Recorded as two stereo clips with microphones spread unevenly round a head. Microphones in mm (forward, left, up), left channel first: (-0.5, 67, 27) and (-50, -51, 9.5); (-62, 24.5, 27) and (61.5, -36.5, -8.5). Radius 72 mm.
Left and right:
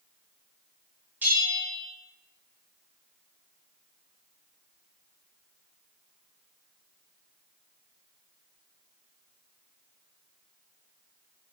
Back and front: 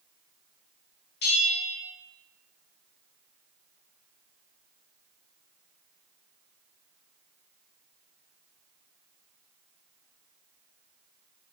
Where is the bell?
170° left, 0.9 m.